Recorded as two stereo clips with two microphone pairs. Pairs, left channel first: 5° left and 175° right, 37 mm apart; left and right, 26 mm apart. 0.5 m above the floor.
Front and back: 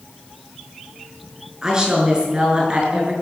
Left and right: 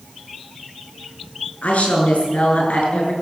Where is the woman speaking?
115° left, 6.5 m; by 3.1 s 125° left, 6.5 m.